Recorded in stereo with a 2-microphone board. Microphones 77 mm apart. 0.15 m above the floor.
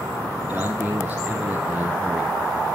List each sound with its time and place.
0.5 s a man speaking: 15° right (ahead or behind), 2.5 m; by 2.3 s centre (ahead or behind), 2 m